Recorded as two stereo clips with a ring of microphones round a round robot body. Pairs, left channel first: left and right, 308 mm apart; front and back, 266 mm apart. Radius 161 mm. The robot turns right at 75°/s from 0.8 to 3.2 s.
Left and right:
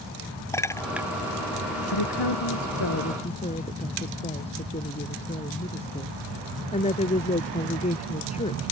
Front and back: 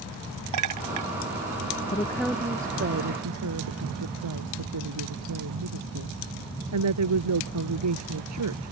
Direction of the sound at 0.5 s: 170° left.